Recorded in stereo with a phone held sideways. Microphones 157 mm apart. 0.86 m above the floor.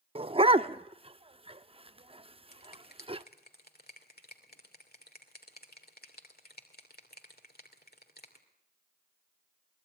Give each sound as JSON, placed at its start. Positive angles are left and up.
{"t": 0.1, "sound": "a dog barking", "side_deg": -35, "distance_m": 0.6}
{"t": 2.5, "sound": "a finger snap", "side_deg": 80, "distance_m": 2.5}